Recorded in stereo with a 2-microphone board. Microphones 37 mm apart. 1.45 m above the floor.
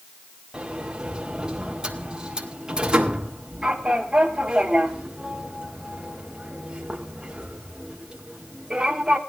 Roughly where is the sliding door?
Right.